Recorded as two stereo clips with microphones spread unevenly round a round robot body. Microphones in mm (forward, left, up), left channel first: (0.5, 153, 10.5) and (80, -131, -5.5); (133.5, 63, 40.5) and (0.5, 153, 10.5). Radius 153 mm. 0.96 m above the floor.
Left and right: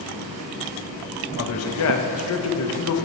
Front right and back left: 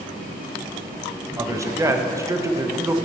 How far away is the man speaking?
About 1.1 m.